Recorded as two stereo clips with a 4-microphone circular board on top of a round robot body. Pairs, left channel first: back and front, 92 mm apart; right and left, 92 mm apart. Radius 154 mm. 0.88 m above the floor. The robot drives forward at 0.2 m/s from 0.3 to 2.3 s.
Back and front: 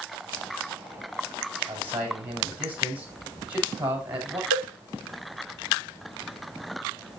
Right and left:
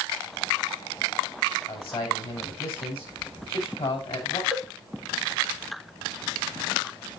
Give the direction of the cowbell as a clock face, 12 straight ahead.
6 o'clock.